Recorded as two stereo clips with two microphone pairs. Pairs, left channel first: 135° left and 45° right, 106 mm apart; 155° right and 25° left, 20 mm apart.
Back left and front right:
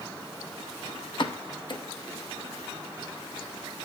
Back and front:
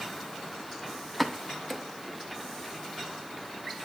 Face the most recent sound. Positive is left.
turn(degrees=115)